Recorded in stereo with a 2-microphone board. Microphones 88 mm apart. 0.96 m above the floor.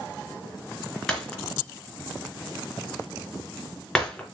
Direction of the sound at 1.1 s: 10° left (ahead or behind).